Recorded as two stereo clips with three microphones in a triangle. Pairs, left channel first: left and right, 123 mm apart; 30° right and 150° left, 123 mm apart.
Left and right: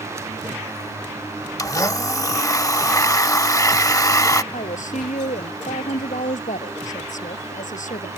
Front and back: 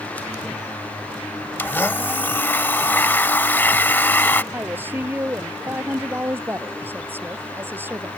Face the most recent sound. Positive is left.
turn(degrees=75)